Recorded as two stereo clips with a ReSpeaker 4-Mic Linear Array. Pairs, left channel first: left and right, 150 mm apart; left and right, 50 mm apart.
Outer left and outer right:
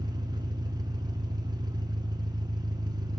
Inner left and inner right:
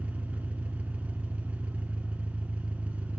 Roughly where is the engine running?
Right.